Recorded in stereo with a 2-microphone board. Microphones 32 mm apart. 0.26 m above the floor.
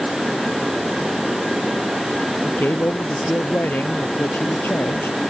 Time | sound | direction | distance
2.5 | a man speaking | 70° left (ahead or behind) | ?